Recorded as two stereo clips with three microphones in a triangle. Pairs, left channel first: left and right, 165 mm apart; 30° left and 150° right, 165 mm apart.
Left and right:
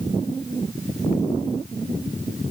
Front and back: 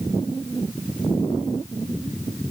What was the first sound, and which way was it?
Only background noise.